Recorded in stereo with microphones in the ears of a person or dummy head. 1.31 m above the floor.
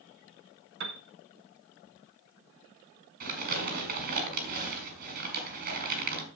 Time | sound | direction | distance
0.8 | a piano | 70° right (ahead or behind) | 1.0 m
3.2 | crumpling | 50° right (ahead or behind) | 3 m